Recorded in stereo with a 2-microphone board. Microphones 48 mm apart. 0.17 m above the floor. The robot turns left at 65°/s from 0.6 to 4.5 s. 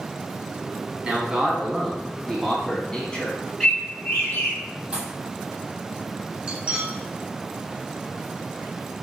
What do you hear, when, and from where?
1.0 s a man speaking: 20° right (ahead or behind), 1.3 m; by 3.4 s 20° left (ahead or behind), 1.3 m
3.6 s a bird: 170° left, 1.9 m; by 4.6 s 115° left, 1.9 m
4.9 s a pop: 30° right (ahead or behind), 0.9 m
6.5 s cutlery clinking: 25° right (ahead or behind), 1.1 m